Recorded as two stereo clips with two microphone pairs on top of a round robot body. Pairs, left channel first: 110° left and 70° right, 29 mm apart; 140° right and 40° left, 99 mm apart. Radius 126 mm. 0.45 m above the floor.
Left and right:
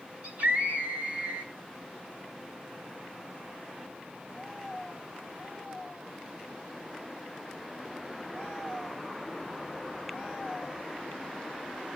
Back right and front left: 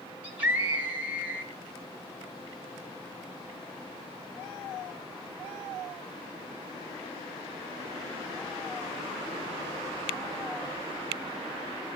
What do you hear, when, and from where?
0.2 s a scream: 30° right, 6 m